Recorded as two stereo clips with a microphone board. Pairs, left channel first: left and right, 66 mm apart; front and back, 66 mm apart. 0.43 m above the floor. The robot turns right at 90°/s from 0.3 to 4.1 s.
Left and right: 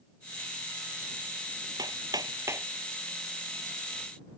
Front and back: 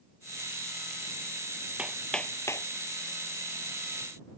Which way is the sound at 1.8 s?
110° right.